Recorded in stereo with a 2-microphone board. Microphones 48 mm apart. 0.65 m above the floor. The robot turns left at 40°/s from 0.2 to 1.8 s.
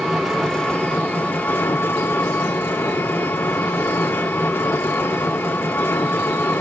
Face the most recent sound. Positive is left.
turn(degrees=120)